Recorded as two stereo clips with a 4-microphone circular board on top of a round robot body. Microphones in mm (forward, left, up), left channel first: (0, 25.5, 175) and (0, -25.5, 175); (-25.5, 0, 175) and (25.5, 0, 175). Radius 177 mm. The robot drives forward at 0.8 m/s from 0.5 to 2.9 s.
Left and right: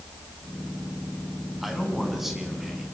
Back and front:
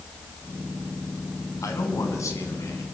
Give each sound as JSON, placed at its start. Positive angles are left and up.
{"t": 1.6, "sound": "a man speaking", "azimuth_deg": -175, "distance_m": 6.0}